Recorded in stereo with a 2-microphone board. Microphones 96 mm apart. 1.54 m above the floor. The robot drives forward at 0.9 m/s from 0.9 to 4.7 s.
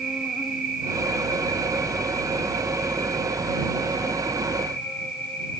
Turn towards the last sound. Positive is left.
turn(degrees=0)  # may be behind; listen again after turning